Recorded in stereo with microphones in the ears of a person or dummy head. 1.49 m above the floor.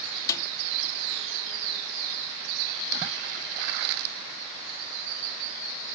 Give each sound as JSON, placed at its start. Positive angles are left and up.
{"t": 0.3, "sound": "a snare drum", "side_deg": 20}